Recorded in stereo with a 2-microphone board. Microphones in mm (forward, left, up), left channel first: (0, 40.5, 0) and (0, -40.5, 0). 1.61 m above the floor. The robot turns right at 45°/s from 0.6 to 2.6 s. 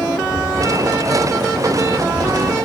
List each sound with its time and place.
0.2 s footsteps: 5° left (ahead or behind); by 2.5 s 80° right